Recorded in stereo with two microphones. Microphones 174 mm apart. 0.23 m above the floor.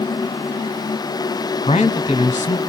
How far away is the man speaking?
About 1.5 m.